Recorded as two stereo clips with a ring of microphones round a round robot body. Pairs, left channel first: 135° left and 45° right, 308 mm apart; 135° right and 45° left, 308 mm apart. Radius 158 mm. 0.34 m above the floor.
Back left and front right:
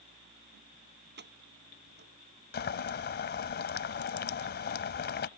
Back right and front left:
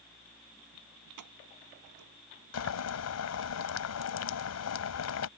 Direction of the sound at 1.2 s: 15° left.